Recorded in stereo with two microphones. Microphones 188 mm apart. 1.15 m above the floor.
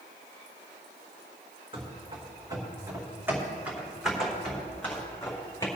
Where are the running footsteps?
30° right (ahead or behind), 3.5 m; by 5.7 s 15° left (ahead or behind), 3.5 m.